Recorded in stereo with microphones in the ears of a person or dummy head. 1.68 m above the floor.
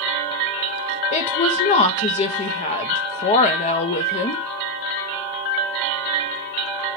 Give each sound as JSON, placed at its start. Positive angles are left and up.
{"t": 1.1, "sound": "a woman speaking", "side_deg": 40, "distance_m": 0.8}